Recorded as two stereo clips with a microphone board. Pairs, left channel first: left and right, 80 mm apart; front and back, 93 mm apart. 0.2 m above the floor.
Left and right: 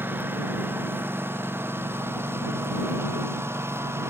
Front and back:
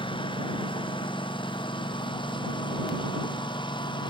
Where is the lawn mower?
25° right; by 4.1 s 30° right.